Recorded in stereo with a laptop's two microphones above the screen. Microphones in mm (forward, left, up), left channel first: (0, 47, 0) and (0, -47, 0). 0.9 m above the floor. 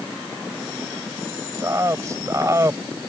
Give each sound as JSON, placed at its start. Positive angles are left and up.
{"t": 1.6, "sound": "a man speaking", "side_deg": -35}